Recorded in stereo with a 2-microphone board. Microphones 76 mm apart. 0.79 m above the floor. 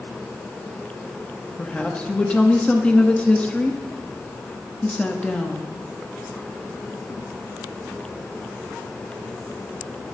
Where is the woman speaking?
15° left (ahead or behind), 1.0 m.